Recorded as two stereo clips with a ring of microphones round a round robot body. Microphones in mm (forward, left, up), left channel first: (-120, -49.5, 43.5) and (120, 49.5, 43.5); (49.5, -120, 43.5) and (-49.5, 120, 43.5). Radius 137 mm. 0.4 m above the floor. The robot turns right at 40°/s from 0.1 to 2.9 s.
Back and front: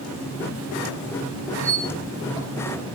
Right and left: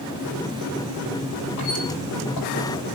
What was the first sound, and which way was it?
A squeak, 115° right.